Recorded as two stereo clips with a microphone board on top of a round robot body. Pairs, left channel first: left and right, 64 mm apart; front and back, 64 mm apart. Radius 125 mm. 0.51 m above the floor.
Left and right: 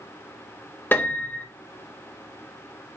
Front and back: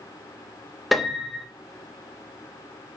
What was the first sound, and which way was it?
A piano, 90° left.